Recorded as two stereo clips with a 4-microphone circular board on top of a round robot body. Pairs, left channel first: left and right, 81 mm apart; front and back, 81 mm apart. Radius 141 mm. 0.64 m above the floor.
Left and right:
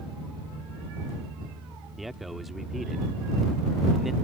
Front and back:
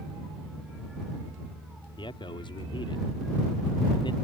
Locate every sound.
2.0 s a man speaking: straight ahead